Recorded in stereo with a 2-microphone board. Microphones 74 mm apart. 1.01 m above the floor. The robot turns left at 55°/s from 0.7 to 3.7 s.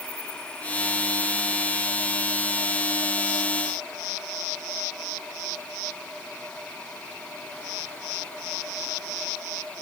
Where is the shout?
I don't hear a shout.